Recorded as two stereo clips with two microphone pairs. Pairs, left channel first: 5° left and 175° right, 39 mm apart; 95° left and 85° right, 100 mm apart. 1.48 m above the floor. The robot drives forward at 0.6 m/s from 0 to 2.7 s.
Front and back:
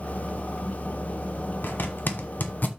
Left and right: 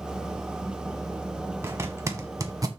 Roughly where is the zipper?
Ahead.